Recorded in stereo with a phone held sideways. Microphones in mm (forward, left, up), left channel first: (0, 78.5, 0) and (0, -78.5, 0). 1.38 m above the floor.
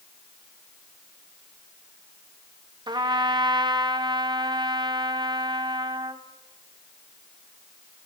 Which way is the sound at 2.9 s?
30° right (ahead or behind).